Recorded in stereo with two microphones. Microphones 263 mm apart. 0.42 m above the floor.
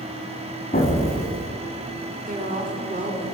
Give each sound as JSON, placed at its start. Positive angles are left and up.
{"t": 0.7, "sound": "an explosion", "side_deg": 35, "distance_m": 0.9}
{"t": 2.3, "sound": "a woman speaking", "side_deg": -30, "distance_m": 0.8}